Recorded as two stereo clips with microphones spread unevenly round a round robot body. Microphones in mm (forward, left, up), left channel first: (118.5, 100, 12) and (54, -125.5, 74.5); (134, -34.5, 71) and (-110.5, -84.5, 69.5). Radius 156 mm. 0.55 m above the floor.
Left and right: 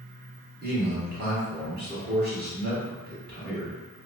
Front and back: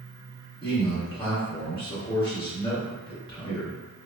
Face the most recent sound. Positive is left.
turn(degrees=-55)